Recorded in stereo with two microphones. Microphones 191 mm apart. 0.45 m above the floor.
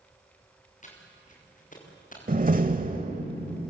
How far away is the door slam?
About 1.2 m.